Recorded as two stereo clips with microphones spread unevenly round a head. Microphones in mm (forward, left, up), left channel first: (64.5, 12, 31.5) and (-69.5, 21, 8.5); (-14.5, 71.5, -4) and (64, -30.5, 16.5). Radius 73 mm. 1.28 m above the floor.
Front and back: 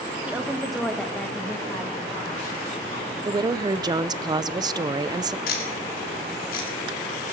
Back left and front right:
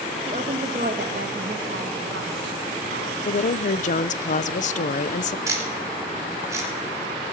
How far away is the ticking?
About 3 m.